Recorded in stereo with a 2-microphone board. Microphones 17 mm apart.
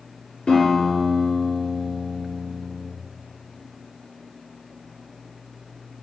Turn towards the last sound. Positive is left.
turn(degrees=75)  # may be behind; listen again after turning